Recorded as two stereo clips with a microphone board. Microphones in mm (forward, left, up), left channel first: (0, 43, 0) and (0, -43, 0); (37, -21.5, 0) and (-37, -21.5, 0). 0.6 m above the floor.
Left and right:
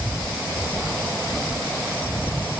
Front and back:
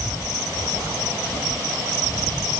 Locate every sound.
Only background noise.